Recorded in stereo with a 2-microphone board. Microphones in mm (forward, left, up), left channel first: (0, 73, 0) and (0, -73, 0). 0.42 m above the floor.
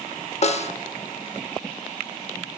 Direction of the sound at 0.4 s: 50° left (ahead or behind).